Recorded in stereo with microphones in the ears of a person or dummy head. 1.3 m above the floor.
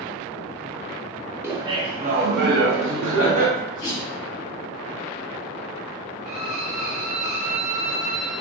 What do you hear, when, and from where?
1.4 s laughter: 10° right (ahead or behind), 0.7 m; by 3.5 s 80° right, 1.1 m
3.5 s a sneeze: 25° left (ahead or behind), 1.9 m
6.2 s a violin: 5° right (ahead or behind), 0.7 m